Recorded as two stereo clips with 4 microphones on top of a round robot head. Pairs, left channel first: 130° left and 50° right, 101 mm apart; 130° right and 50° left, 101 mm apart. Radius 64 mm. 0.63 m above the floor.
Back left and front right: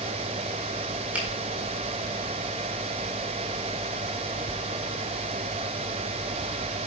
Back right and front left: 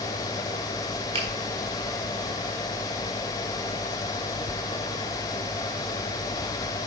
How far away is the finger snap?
About 4 m.